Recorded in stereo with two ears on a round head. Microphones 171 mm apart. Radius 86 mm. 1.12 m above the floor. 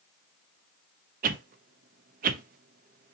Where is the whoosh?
50° right (ahead or behind), 0.6 m.